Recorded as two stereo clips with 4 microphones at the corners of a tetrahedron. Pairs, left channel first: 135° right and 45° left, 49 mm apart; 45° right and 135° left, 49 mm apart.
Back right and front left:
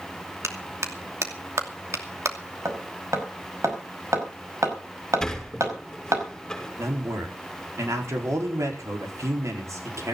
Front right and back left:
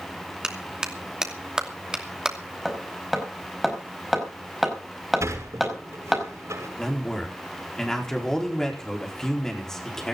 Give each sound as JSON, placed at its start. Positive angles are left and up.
{"t": 0.4, "sound": "a clap", "azimuth_deg": 55, "distance_m": 2.5}
{"t": 2.6, "sound": "hammering", "azimuth_deg": 45, "distance_m": 5.0}
{"t": 5.2, "sound": "a sliding door", "azimuth_deg": 145, "distance_m": 6.0}
{"t": 6.8, "sound": "a man speaking", "azimuth_deg": 35, "distance_m": 4.5}